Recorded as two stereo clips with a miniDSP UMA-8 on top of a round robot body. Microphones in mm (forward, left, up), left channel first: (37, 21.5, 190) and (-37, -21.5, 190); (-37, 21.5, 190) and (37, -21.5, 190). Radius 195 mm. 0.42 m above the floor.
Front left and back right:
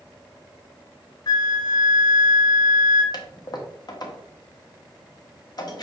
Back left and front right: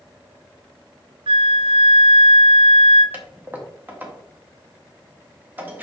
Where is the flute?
10° right, 0.8 m.